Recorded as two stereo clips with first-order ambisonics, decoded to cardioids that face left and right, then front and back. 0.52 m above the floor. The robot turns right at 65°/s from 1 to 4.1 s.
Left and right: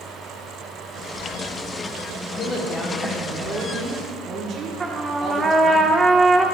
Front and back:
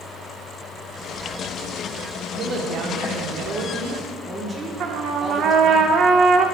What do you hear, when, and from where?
2.4 s a woman speaking: 130° left, 1.2 m; by 5.8 s 115° right, 1.2 m
4.8 s a trumpet: 160° right, 0.6 m